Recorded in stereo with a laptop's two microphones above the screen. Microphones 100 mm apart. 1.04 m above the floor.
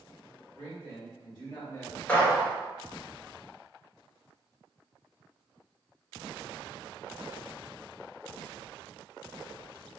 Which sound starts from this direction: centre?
A gunshot, at 2.1 s.